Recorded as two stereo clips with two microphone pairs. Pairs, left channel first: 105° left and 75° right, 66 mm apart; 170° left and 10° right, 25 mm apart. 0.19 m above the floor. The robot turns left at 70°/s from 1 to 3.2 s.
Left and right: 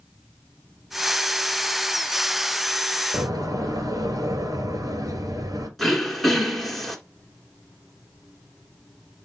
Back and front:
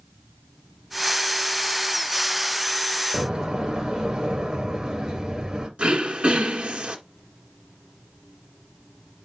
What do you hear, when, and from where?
3.1 s a door slam: 65° right, 2 m; by 5.7 s 70° right, 2 m
5.8 s throat clearing: 15° left, 2.5 m